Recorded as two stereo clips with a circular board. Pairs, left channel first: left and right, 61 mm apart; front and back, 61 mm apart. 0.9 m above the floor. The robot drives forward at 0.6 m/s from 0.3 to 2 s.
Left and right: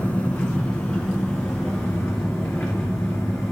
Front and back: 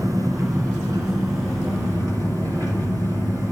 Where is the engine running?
160° left, 2 m; by 3.5 s 165° left, 3 m.